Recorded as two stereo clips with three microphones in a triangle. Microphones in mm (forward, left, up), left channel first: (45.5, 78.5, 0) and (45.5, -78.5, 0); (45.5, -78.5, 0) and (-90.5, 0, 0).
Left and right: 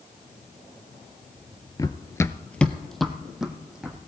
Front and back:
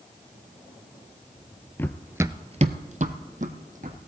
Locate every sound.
1.8 s running footsteps: 35° left, 0.6 m; by 4.0 s 175° right, 1.9 m